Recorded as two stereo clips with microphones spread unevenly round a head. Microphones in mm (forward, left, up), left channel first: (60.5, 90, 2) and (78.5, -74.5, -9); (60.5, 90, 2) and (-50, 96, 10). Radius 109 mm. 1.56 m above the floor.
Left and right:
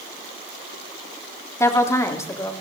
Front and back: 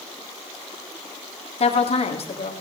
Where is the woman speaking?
25° left, 3 m.